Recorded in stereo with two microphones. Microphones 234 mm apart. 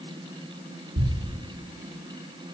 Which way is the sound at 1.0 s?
70° right (ahead or behind).